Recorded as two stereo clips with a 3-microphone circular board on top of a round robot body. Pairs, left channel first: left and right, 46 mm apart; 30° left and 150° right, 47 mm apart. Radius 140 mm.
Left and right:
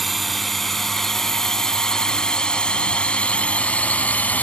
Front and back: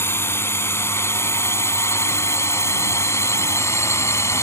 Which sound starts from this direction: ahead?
A drone, at 0.0 s.